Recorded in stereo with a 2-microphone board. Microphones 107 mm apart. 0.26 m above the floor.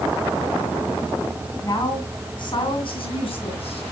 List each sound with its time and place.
1.6 s a woman speaking: 35° left (ahead or behind), 2.5 m; by 3.8 s 65° left (ahead or behind), 3 m